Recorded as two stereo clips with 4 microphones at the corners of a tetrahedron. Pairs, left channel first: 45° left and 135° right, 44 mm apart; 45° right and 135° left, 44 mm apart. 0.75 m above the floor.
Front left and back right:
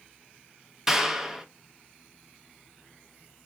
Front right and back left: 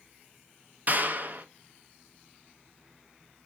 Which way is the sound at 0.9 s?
150° left.